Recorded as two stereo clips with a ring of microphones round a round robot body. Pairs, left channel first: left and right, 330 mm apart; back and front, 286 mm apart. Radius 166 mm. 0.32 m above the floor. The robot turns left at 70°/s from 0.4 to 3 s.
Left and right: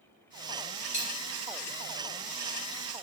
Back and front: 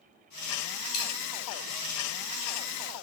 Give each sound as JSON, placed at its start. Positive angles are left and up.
{"t": 0.9, "sound": "a dropped coin", "azimuth_deg": 160, "distance_m": 1.3}